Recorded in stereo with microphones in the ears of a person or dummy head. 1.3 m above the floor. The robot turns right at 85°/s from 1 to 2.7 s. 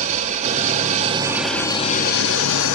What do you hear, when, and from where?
0.0 s an engine running: 45° right, 1.6 m; by 2.8 s 100° left, 1.6 m